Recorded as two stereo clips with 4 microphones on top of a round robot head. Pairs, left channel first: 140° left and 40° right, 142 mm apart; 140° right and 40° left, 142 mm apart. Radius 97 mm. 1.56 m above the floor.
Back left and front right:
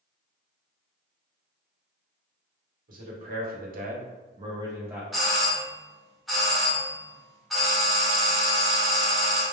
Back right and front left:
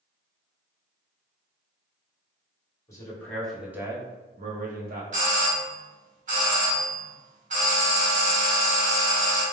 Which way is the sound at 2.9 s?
70° right.